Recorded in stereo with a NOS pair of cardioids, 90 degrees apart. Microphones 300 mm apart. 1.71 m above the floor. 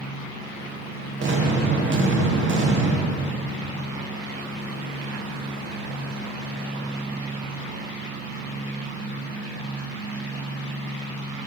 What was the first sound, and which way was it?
An explosion, 40° right.